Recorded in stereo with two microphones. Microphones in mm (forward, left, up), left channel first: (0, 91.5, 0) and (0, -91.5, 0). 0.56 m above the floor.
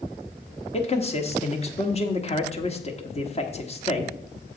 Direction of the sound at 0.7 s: 35° left (ahead or behind).